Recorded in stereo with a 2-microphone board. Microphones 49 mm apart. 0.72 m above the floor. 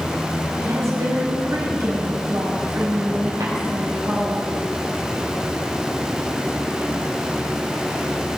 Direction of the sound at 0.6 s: 80° right.